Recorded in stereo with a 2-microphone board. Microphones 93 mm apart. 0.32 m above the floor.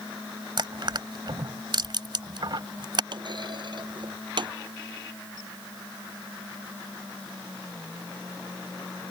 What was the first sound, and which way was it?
Crushing, 55° right (ahead or behind).